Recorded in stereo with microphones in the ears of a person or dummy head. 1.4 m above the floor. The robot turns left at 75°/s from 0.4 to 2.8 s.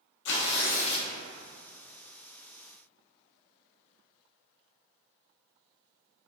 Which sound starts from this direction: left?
Tearing paper, at 0.2 s.